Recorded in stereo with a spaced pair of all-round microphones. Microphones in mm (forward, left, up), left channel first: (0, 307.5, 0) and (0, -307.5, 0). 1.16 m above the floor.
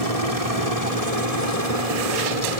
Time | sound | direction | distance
0.0 | a helicopter | 70° right (ahead or behind) | ?